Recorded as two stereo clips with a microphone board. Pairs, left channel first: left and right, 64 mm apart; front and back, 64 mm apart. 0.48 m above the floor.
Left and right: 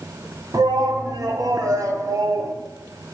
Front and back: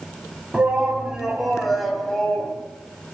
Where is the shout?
110° right, 3 m; by 2.5 s 75° right, 3 m.